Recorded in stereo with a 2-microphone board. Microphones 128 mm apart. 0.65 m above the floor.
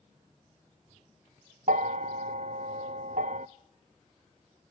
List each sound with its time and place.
1.7 s a bell: 70° right (ahead or behind), 0.6 m